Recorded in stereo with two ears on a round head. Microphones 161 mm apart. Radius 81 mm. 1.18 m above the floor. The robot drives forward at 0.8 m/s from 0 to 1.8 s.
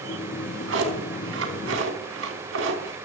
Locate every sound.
0.3 s a drawer: 75° right (ahead or behind), 4.5 m; by 3.0 s 80° right, 4.5 m